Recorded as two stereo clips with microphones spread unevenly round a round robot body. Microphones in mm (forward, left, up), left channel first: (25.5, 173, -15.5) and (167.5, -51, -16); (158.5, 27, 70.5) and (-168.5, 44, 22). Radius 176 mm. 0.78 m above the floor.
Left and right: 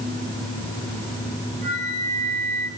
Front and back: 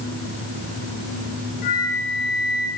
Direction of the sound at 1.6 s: 70° right.